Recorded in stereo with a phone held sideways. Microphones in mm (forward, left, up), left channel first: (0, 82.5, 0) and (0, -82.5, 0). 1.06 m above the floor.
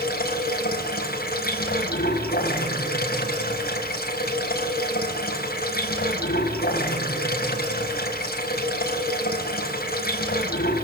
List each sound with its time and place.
0.0 s running water: 70° left (ahead or behind), 4.5 m